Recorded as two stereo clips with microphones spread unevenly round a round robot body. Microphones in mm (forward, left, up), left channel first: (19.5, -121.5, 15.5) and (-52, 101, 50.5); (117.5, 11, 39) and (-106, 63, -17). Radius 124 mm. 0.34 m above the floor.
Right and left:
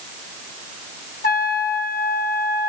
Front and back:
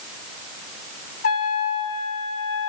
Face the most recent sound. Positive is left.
turn(degrees=-75)